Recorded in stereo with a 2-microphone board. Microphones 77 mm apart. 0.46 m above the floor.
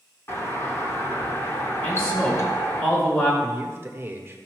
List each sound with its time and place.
0.3 s a doorbell: 35° left (ahead or behind), 2 m
1.8 s a man speaking: 30° left (ahead or behind), 4.5 m
3.4 s a man speaking: 30° right (ahead or behind), 1.3 m